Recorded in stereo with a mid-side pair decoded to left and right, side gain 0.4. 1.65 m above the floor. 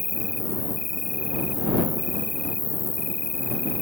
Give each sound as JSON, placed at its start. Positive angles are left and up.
{"t": 0.0, "sound": "an insect", "azimuth_deg": 25}